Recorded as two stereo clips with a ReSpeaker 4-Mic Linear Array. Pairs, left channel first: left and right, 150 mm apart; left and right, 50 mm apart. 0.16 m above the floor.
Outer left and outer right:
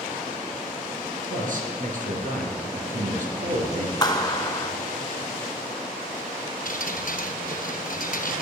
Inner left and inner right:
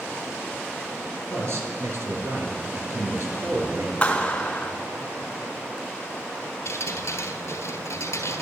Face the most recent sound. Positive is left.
turn(degrees=70)  # may be behind; listen again after turning